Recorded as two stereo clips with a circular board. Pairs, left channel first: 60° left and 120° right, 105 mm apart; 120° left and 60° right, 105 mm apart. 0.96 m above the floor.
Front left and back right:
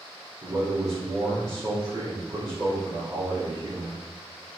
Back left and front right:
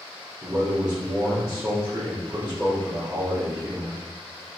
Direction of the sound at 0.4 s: 105° right.